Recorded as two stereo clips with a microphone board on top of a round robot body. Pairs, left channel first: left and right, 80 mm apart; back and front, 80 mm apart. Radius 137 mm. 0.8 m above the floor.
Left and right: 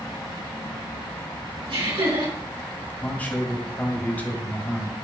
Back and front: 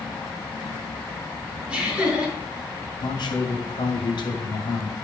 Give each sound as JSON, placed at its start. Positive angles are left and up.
{"t": 1.7, "sound": "laughter", "azimuth_deg": -80, "distance_m": 5.0}
{"t": 3.0, "sound": "a man speaking", "azimuth_deg": 160, "distance_m": 2.5}